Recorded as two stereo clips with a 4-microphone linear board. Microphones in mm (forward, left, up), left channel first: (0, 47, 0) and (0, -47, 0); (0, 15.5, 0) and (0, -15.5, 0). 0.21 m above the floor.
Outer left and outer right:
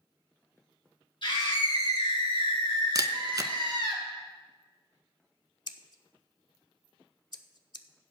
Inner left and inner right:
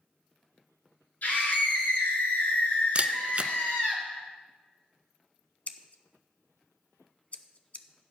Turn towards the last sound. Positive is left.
turn(degrees=50)  # may be behind; listen again after turning